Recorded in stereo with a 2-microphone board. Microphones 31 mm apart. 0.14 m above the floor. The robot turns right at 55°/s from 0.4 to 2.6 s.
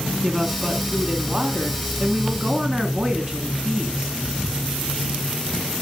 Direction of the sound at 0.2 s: 10° right (ahead or behind).